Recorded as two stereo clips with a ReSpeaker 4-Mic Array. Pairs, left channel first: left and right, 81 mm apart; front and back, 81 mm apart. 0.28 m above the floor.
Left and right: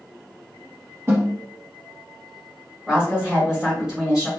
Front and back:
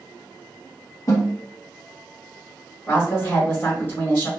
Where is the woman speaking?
20° right, 1.3 m.